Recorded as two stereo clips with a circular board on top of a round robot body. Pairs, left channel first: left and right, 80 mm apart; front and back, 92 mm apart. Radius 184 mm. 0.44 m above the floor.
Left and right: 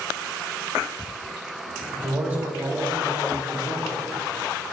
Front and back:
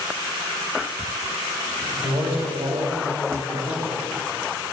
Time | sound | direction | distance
1.9 | a man speaking | 155° right | 3 m